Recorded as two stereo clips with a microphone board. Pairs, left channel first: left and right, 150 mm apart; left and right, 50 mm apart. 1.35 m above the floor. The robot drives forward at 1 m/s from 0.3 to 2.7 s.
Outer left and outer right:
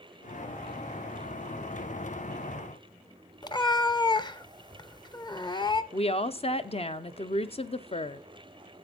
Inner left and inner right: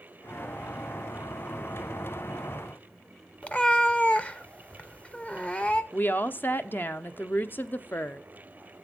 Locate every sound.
3.4 s a cat meowing: 30° left (ahead or behind), 0.6 m
5.9 s a woman speaking: 40° left (ahead or behind), 0.6 m